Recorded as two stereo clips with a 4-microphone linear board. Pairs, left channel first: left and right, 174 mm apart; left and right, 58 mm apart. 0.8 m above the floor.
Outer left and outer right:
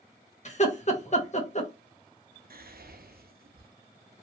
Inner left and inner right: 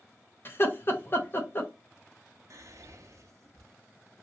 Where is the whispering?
60° right (ahead or behind), 0.6 m.